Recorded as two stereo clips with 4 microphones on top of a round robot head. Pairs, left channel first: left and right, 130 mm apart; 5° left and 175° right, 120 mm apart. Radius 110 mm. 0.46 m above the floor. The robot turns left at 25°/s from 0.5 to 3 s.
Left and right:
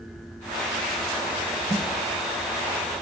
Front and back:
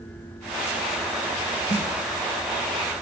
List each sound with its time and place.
1.7 s a snare drum: 25° right, 3 m; by 1.9 s 30° right, 3 m